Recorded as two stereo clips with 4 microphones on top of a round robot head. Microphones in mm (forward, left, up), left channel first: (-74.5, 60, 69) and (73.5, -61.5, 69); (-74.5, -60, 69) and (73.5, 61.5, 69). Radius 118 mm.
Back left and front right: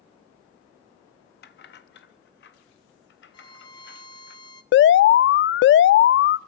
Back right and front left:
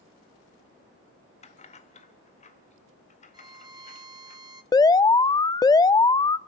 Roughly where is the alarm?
Behind left.